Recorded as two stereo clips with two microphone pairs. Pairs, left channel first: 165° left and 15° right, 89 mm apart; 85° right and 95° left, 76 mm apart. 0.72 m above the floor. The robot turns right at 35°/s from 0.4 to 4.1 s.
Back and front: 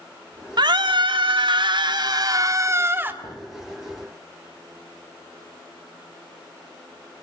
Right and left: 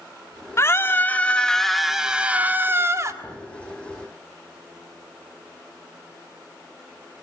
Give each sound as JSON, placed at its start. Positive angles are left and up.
{"t": 0.6, "sound": "a scream", "azimuth_deg": -40, "distance_m": 2.0}
{"t": 3.2, "sound": "a thud", "azimuth_deg": 175, "distance_m": 8.0}